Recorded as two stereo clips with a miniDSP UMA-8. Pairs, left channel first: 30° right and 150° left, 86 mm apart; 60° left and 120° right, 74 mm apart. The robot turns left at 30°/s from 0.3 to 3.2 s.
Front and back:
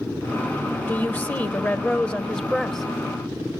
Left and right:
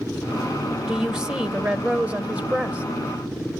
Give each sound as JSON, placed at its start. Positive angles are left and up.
{"t": 0.9, "sound": "a woman speaking", "azimuth_deg": -50, "distance_m": 0.9}